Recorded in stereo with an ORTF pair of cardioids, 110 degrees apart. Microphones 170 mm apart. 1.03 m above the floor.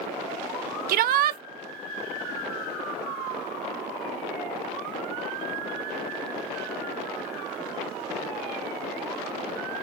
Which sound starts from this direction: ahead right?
A shout, at 0.9 s.